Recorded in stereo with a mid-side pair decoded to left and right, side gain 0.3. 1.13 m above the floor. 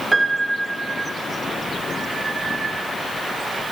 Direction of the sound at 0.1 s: 25° right.